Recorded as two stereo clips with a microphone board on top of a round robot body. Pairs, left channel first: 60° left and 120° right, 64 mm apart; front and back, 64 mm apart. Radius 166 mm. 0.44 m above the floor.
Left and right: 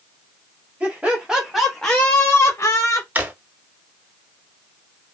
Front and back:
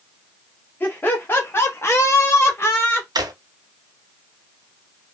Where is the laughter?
55° right, 1.4 m; by 3.0 s 50° left, 1.2 m.